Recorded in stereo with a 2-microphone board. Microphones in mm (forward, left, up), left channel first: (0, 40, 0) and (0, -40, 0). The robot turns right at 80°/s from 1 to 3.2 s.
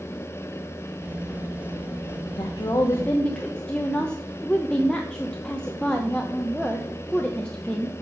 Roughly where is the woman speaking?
Left.